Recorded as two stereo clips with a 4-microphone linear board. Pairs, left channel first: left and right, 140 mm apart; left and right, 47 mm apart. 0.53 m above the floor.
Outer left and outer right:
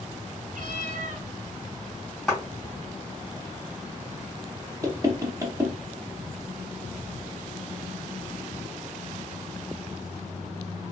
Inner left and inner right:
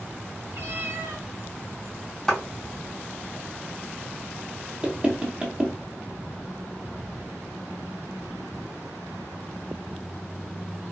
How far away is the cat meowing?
About 0.8 m.